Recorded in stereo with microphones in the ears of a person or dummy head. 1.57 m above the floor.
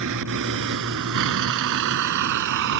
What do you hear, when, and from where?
0.0 s a vehicle: 70° right (ahead or behind); by 2.8 s 65° right (ahead or behind)